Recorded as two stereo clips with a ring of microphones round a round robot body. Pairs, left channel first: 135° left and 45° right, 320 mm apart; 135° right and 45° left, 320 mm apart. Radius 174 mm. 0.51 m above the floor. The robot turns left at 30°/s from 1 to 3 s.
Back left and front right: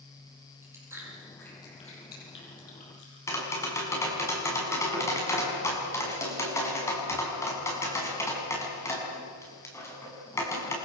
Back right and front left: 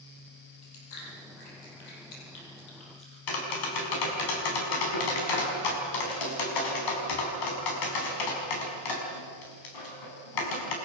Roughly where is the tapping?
Behind right.